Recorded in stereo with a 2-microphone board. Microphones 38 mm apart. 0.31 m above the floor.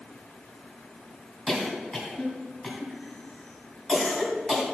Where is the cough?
15° left (ahead or behind), 2.5 m.